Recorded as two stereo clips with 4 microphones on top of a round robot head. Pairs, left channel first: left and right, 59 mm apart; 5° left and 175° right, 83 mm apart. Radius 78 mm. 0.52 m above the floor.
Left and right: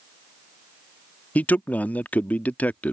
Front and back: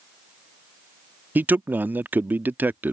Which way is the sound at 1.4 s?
130° left.